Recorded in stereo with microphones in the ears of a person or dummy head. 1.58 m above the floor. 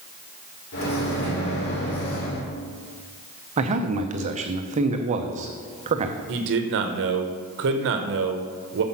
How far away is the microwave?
About 3.5 m.